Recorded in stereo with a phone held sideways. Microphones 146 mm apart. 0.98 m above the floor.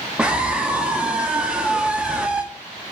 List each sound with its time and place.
0.2 s a scream: 5° right (ahead or behind), 2 m